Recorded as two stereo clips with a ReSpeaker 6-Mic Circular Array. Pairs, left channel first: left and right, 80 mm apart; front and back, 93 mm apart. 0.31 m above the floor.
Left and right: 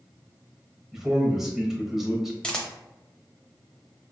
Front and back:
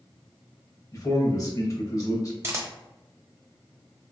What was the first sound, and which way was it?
A man speaking, 5° right.